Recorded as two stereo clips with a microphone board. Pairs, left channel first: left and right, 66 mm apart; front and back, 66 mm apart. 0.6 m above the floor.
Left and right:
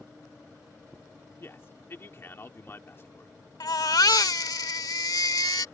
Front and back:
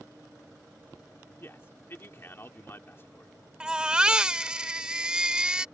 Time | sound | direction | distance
1.4 | a man speaking | 45° left | ?
3.6 | a baby crying | 105° left | ?